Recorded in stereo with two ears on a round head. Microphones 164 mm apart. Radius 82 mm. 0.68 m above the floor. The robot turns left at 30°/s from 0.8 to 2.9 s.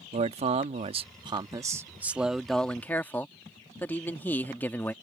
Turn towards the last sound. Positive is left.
turn(degrees=165)